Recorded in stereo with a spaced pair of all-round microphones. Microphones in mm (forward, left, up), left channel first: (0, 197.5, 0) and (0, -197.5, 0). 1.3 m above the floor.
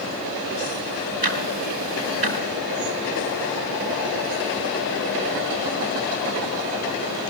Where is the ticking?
70° right (ahead or behind), 4 m.